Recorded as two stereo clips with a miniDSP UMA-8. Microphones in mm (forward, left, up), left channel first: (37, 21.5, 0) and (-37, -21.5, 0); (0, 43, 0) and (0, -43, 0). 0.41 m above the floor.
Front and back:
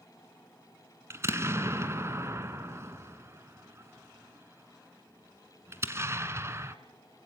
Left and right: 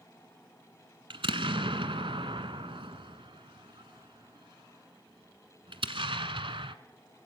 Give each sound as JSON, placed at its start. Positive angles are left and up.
{"t": 1.1, "sound": "an explosion", "azimuth_deg": -90, "distance_m": 1.4}